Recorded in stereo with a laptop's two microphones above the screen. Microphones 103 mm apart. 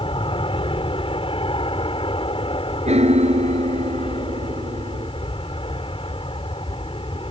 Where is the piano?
85° right.